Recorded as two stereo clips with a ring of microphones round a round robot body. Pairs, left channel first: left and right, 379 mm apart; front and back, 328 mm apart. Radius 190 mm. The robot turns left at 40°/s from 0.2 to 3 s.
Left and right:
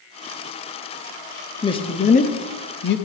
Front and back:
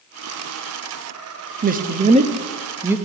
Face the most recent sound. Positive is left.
turn(degrees=100)